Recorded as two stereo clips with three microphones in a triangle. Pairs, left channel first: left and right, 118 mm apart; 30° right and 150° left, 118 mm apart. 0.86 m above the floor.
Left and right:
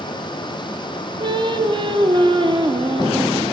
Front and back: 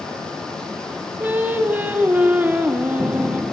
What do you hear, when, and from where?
1.2 s singing: 135° right, 0.6 m